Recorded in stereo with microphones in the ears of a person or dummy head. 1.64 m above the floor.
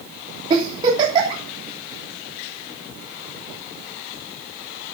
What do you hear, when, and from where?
0.5 s a giggle: 25° right (ahead or behind), 3 m